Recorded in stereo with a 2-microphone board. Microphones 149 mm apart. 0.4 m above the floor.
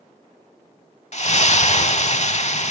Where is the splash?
50° left (ahead or behind), 0.6 m.